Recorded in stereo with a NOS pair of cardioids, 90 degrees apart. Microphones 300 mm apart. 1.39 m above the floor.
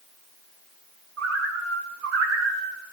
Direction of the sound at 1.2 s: 60° right.